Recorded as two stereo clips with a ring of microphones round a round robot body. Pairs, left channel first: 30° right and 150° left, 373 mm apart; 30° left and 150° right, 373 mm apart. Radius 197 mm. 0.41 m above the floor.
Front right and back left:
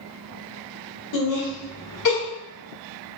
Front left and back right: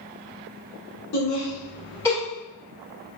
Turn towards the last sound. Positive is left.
turn(degrees=-55)